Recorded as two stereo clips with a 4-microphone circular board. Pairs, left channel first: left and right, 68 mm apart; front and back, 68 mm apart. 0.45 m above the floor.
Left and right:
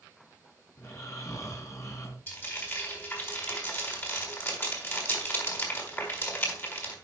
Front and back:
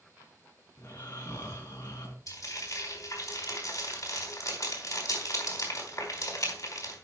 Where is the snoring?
50° left, 3.5 m.